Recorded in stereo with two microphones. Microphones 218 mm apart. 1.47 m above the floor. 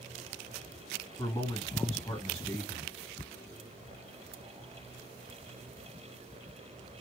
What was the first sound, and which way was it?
A man speaking, 25° left (ahead or behind).